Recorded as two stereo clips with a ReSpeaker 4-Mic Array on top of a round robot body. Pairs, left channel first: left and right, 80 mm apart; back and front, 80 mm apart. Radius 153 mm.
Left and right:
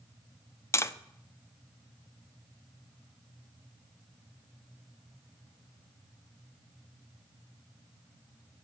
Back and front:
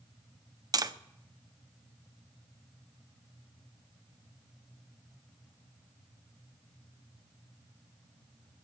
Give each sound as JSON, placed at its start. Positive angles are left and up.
{"t": 0.7, "sound": "tapping", "azimuth_deg": 35, "distance_m": 1.0}